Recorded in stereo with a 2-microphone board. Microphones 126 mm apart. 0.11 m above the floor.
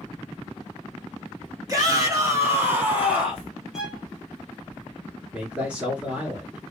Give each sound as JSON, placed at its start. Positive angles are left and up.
{"t": 1.7, "sound": "a shout", "side_deg": -30, "distance_m": 1.5}
{"t": 3.7, "sound": "a violin", "side_deg": -5, "distance_m": 0.7}
{"t": 5.3, "sound": "a man speaking", "side_deg": -10, "distance_m": 1.3}